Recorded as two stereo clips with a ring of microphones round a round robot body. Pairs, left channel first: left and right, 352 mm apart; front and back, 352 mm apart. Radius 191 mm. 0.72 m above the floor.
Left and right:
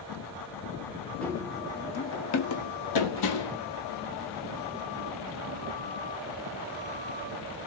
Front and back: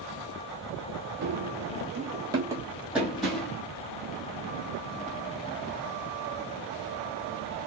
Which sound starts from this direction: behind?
Running footsteps, at 1.2 s.